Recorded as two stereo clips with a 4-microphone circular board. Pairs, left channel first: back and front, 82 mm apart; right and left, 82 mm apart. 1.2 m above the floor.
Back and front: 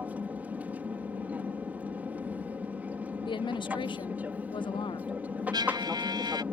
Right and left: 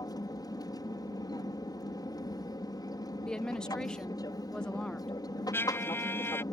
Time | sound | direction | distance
0.0 | an aircraft | 70° right | ?
3.2 | a woman speaking | 170° right | ?
5.5 | a trumpet | 30° right | ?